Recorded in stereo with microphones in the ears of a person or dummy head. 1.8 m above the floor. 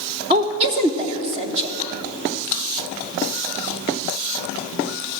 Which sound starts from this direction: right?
A woman speaking, at 0.3 s.